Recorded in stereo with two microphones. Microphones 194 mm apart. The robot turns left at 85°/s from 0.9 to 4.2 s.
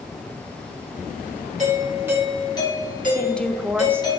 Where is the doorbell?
125° right, 2.5 m; by 4.2 s 20° left, 2.5 m.